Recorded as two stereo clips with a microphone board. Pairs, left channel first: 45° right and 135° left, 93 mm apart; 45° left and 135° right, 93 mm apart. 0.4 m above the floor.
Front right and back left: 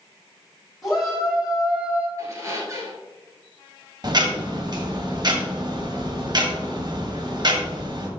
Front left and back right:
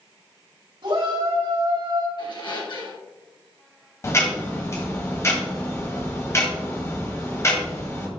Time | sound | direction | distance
0.8 | a shout | 135° right | 3.5 m
2.2 | a squeak | 80° left | 2.5 m
4.0 | ticking | 100° left | 1.6 m